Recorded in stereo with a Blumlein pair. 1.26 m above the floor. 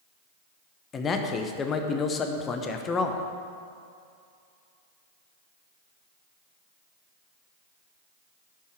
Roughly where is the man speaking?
Ahead left.